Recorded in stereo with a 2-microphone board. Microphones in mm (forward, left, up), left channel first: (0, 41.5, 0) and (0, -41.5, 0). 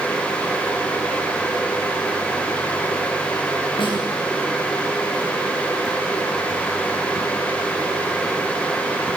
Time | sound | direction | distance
3.8 | a snare drum | 80° left | 8 m